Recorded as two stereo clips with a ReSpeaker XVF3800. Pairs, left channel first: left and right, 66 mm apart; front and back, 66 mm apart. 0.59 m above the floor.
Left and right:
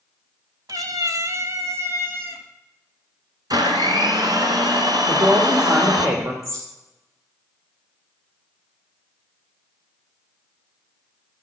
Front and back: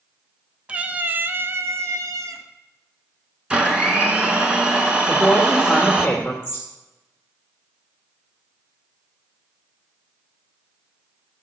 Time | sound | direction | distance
0.7 | a cat meowing | 110° right | 1.0 m
3.5 | a blender | 105° right | 2.5 m
5.1 | a woman speaking | 70° right | 2.0 m
6.4 | a bird | 60° right | 5 m